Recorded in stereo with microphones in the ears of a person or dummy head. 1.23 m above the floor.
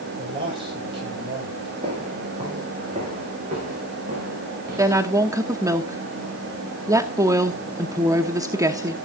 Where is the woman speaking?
15° right (ahead or behind), 0.9 m.